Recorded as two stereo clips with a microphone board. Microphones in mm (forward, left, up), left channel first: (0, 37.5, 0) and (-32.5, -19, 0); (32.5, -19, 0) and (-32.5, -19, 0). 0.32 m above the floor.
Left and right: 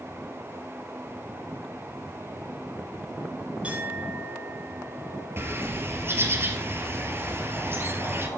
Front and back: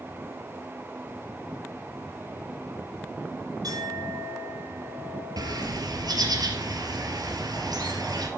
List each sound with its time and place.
3.6 s a clink: 170° left, 8.5 m
5.4 s a bird: 175° right, 2.5 m